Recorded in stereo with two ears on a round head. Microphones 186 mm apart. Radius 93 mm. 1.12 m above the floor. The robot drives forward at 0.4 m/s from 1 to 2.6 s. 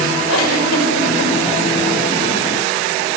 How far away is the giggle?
About 4.5 m.